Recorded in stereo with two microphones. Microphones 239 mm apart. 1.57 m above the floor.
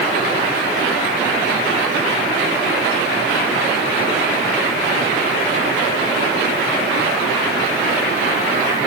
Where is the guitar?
No guitar in this recording.